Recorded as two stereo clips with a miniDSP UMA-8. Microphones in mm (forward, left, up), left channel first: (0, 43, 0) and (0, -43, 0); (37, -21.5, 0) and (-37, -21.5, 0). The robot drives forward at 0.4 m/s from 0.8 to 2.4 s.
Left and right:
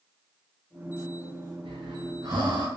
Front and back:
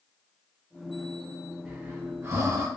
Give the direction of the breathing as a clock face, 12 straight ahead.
4 o'clock.